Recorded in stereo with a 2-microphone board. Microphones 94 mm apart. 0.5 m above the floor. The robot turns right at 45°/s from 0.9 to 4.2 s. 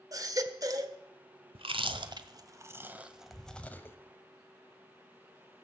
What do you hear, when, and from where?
0.1 s a baby crying: 40° right (ahead or behind), 1.3 m
1.6 s chewing: 80° right, 1.2 m; by 4.0 s 25° left (ahead or behind), 1.2 m